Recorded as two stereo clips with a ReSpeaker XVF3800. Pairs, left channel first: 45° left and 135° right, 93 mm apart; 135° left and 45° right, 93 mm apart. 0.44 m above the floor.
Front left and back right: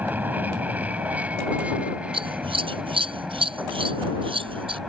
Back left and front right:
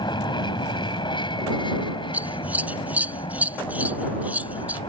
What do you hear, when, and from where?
0.0 s an aircraft: 160° left; by 4.9 s 140° left
2.1 s scissors: 120° right